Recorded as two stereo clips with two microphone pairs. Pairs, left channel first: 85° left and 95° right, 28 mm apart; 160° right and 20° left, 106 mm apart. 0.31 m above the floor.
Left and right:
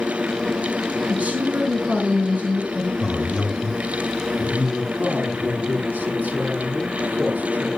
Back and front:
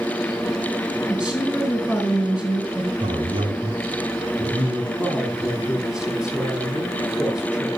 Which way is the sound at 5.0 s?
65° right.